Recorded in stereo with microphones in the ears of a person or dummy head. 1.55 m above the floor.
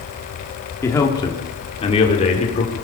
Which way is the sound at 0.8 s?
15° left (ahead or behind).